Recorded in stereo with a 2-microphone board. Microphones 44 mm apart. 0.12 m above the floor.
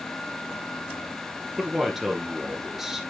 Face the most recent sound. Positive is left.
turn(degrees=-10)  # may be behind; listen again after turning